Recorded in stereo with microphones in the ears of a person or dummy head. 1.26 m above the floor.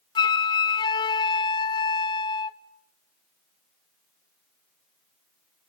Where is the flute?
15° left (ahead or behind), 0.5 m.